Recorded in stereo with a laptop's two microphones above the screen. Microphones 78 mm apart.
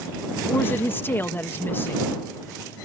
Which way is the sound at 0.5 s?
30° left (ahead or behind).